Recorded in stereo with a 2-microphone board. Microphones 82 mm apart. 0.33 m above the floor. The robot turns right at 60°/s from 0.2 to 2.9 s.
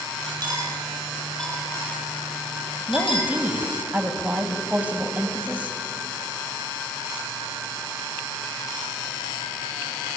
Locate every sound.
0.4 s cutlery clinking: 50° right (ahead or behind), 6 m; by 3.3 s 80° left, 6 m
2.9 s a woman speaking: 15° right (ahead or behind), 2.5 m; by 5.8 s 20° right (ahead or behind), 2.5 m